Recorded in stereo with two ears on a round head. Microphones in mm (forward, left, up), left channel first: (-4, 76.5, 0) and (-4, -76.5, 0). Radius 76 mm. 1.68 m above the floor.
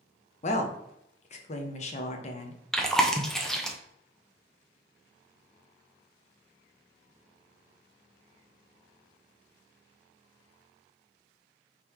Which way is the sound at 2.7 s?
5° left (ahead or behind).